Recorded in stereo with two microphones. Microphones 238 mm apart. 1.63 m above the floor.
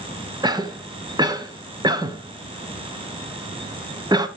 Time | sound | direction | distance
0.4 | a cough | 15° right (ahead or behind) | 1.0 m